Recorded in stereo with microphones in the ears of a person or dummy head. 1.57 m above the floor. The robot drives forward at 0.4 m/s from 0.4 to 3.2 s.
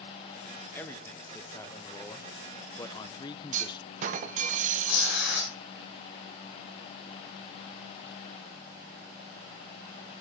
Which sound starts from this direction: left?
Tearing paper, at 4.8 s.